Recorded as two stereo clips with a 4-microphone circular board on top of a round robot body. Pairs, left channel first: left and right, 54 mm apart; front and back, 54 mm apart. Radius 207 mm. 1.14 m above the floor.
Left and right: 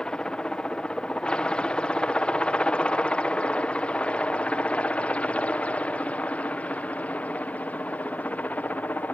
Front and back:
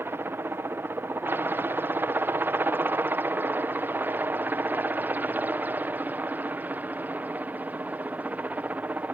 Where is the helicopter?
160° left; by 9.1 s 135° left.